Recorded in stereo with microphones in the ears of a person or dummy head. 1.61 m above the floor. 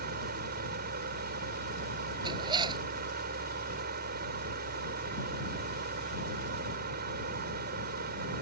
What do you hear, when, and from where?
0.0 s a fan: 50° right (ahead or behind)
2.2 s a zipper: 25° right (ahead or behind)